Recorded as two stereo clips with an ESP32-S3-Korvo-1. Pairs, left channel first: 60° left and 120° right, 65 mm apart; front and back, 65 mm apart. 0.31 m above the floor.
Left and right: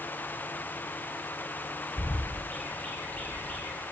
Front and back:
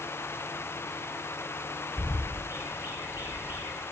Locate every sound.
2.0 s a bird: 130° left, 0.7 m